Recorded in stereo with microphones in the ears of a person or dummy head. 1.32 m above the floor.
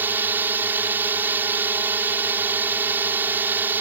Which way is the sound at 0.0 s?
10° right (ahead or behind).